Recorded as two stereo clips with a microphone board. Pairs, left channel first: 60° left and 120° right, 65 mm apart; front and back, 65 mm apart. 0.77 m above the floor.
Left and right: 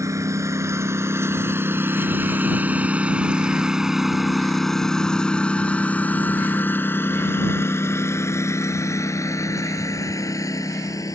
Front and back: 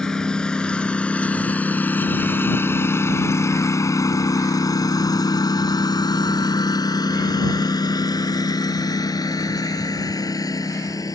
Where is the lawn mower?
80° right; by 11.2 s 30° left.